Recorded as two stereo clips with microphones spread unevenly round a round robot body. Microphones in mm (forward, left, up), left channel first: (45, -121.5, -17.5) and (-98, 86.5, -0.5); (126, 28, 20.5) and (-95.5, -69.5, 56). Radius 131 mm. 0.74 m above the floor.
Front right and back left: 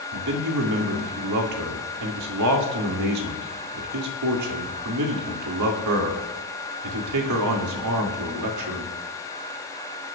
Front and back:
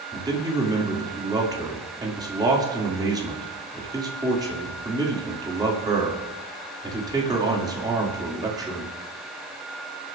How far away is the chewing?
I don't hear chewing.